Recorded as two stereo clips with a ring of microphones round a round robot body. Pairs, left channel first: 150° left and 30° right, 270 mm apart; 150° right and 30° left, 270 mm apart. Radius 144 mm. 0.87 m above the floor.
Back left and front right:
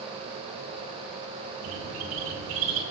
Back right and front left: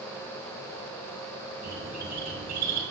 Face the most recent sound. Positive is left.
turn(degrees=-30)